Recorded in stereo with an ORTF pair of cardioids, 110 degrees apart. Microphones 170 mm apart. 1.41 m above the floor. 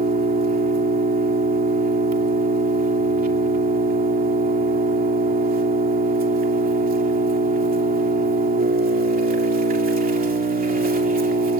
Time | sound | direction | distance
0.0 | an engine running | 60° right | 2.5 m